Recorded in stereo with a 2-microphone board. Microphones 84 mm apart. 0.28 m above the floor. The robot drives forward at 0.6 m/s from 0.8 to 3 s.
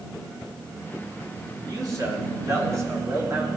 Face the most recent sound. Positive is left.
turn(degrees=-40)  # may be behind; listen again after turning